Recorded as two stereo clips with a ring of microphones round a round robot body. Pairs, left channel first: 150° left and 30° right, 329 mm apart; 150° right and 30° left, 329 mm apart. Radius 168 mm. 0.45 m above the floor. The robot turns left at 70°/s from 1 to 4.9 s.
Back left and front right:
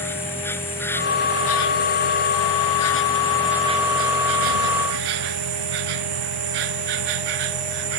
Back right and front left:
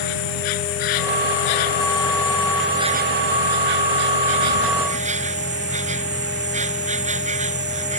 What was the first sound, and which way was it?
An insect, 125° right.